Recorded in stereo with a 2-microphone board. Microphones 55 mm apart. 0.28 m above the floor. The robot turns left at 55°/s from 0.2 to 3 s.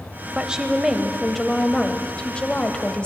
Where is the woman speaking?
15° right (ahead or behind), 0.9 m; by 3.1 s 20° left (ahead or behind), 0.9 m.